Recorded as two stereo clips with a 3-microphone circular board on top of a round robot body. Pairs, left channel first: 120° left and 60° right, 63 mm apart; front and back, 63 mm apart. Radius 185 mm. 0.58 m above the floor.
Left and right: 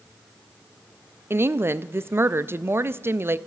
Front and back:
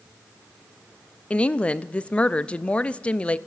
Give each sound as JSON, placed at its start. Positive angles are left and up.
{"t": 1.3, "sound": "a woman speaking", "azimuth_deg": -60, "distance_m": 0.7}